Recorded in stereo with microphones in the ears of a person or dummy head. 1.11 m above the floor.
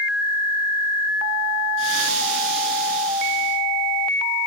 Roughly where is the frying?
Right.